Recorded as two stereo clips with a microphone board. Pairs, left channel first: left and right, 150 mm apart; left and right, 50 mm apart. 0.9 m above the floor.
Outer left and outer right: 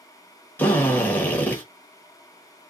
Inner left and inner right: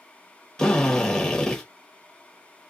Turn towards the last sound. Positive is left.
turn(degrees=10)  # may be behind; listen again after turning